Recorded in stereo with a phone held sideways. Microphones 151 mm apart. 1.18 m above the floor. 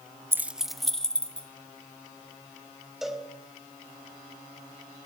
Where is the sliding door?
I don't hear a sliding door.